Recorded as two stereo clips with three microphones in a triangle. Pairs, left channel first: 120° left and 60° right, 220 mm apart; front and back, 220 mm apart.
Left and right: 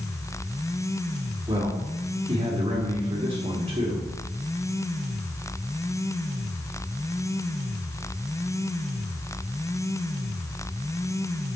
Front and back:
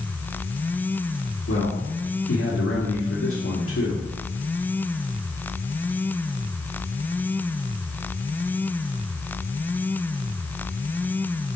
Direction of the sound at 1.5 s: 5° left.